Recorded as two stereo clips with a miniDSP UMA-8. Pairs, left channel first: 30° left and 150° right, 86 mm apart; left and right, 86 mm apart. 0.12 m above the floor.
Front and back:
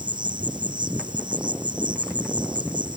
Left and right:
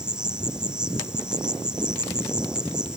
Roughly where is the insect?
Behind.